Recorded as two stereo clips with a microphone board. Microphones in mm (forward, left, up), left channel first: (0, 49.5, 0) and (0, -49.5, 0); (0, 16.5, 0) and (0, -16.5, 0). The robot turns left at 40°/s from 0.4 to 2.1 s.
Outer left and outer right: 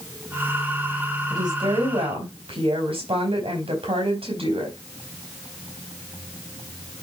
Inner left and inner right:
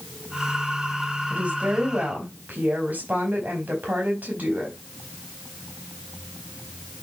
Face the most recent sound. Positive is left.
turn(degrees=-80)